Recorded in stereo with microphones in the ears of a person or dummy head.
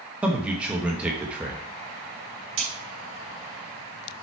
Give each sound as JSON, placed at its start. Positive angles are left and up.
{"t": 0.2, "sound": "a man speaking", "side_deg": -5, "distance_m": 1.2}
{"t": 2.6, "sound": "a crack", "side_deg": -80, "distance_m": 4.0}